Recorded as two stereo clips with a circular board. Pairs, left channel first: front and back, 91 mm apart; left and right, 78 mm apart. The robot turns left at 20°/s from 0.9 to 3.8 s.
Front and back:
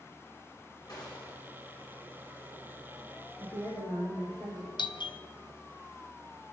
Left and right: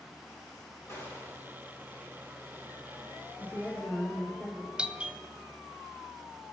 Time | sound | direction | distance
0.9 | a gunshot | 40° left | 3.5 m
3.4 | a woman speaking | 30° left | 5.5 m
4.8 | a doorbell | 15° right | 0.6 m